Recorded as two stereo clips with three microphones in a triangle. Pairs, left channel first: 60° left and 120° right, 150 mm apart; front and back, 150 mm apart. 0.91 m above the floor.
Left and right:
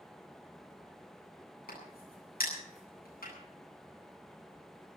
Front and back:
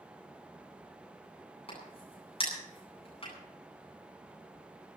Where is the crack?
50° left, 9.5 m.